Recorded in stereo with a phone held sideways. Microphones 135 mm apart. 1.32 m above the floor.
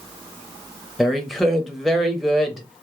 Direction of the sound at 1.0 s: Centre (ahead or behind).